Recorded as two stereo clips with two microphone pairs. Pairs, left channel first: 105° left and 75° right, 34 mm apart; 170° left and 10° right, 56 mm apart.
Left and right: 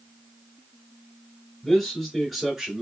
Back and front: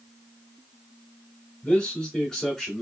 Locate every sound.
1.6 s a man speaking: 160° left, 1.8 m; by 2.8 s 110° right, 1.7 m